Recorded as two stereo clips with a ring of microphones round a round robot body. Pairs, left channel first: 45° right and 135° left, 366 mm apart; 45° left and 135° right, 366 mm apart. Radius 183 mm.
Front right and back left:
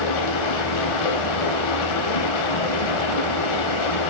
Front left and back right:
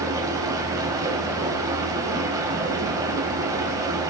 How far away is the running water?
About 3.5 m.